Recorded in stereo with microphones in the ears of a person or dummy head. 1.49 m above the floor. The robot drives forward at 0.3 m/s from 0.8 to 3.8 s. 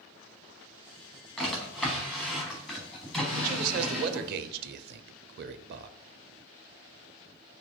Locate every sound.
1.4 s a drawer: 5° left (ahead or behind), 1.2 m
3.3 s a man speaking: 45° right (ahead or behind), 0.6 m; by 6.0 s 55° right (ahead or behind), 0.5 m